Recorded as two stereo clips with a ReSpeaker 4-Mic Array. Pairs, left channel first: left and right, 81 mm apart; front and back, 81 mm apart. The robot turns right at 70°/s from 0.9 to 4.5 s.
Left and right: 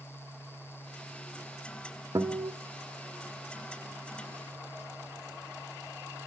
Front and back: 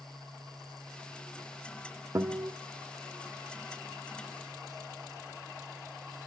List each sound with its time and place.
2.1 s a guitar: 135° right, 1.3 m; by 2.5 s 110° right, 1.3 m